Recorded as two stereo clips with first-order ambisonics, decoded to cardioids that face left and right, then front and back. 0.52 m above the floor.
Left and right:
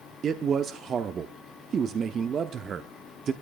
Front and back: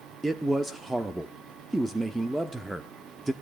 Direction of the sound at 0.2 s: 100° right.